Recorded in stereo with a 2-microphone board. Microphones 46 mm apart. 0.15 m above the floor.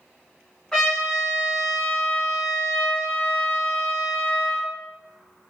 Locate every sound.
0.7 s a trumpet: 10° left (ahead or behind), 1.8 m